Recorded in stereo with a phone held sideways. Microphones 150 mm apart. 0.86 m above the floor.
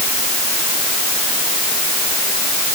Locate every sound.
Only background noise.